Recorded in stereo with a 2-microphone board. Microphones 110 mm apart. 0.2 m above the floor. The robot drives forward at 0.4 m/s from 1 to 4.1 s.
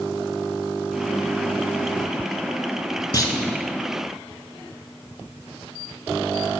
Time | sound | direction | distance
3.1 | a clunk | 40° left (ahead or behind) | 0.7 m